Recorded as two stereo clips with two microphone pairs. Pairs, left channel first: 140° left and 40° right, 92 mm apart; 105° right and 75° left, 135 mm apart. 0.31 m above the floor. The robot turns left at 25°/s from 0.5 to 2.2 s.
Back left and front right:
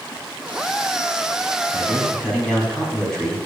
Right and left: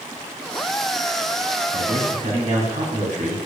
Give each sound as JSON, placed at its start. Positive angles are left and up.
{"t": 1.7, "sound": "a man speaking", "azimuth_deg": 70, "distance_m": 2.5}